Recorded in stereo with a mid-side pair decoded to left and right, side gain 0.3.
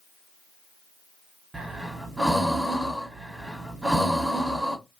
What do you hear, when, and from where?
1.5 s breathing: 10° right, 1.4 m